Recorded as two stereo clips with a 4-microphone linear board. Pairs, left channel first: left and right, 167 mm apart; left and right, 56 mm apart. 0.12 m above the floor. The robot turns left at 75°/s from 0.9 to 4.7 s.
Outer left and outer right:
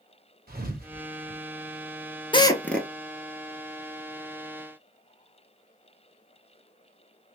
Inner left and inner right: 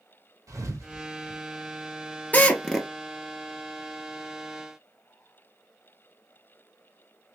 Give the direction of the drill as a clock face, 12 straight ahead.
11 o'clock.